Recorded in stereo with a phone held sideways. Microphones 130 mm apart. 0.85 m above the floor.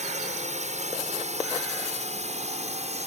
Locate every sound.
0.0 s a drone: 65° right (ahead or behind); by 3.1 s 60° right (ahead or behind)